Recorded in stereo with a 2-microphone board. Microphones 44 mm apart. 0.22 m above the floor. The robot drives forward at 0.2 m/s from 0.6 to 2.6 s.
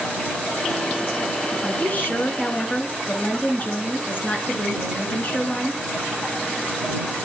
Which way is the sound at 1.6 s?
40° left (ahead or behind).